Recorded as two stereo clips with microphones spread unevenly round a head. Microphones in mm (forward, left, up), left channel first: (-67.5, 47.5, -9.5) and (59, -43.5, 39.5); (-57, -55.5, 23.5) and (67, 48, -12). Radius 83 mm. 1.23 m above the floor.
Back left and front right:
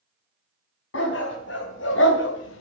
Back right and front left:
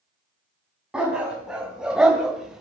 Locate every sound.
0.9 s a dog barking: 130° left, 4 m; by 2.6 s 135° left, 1.6 m